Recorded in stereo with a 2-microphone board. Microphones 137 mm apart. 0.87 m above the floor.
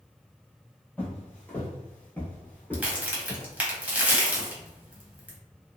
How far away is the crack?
About 0.9 m.